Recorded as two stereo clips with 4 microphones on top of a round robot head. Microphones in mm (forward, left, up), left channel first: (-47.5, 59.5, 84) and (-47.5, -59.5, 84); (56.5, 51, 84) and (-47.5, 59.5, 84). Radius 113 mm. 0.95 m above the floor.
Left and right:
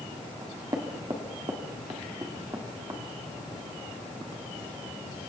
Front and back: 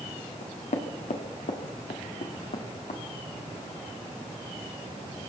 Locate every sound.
0.4 s knocking: 25° right, 1.7 m